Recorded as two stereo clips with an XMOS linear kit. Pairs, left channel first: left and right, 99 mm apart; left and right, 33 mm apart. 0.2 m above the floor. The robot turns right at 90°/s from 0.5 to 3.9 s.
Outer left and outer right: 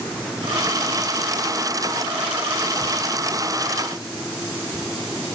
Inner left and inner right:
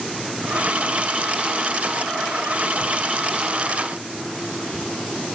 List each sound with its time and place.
Only background noise.